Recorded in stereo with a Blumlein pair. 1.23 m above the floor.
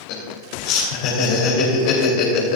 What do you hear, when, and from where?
0.1 s laughter: 45° left, 3 m